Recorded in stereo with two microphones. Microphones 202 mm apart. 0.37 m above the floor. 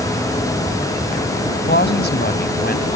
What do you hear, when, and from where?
1.7 s a woman speaking: 60° left (ahead or behind); by 3.0 s 50° left (ahead or behind)